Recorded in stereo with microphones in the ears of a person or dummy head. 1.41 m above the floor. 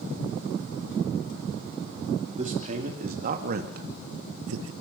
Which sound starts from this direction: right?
A man speaking, at 2.3 s.